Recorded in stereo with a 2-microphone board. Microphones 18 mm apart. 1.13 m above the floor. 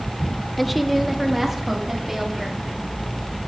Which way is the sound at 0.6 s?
10° left (ahead or behind).